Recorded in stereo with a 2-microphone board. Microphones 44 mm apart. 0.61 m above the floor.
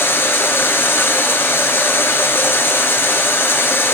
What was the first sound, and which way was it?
Running water, 65° left (ahead or behind).